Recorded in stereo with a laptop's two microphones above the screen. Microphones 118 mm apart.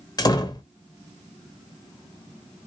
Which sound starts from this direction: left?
A door slam, at 0.2 s.